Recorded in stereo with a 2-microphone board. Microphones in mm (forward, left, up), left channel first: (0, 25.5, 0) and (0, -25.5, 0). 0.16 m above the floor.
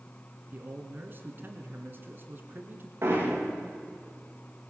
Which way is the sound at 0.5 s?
40° right (ahead or behind).